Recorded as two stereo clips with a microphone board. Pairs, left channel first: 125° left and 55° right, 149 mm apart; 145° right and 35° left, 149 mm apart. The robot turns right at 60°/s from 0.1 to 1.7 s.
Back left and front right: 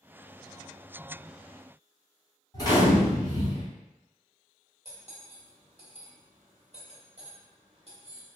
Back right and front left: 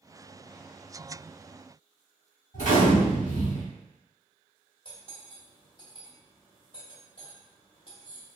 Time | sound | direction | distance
2.5 | a gunshot | 175° right | 1.7 m
4.8 | cutlery clinking | 95° right | 0.9 m